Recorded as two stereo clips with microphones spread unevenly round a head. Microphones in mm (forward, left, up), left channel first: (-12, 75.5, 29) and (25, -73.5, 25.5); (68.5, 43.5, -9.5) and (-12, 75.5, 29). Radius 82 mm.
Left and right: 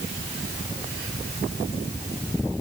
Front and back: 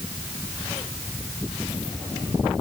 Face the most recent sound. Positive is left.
No sound to turn to.